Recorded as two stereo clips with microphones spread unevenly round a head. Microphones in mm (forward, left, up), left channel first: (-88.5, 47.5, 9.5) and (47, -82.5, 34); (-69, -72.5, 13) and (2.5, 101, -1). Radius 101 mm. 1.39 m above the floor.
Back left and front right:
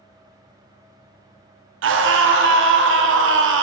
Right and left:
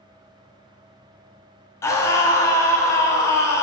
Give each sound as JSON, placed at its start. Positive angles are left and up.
{"t": 1.8, "sound": "a scream", "azimuth_deg": -35, "distance_m": 0.5}